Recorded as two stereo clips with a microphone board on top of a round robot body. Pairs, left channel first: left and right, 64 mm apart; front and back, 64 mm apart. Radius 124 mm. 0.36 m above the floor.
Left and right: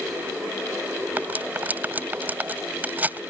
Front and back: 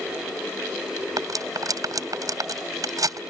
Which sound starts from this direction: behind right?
Cutlery clinking, at 1.2 s.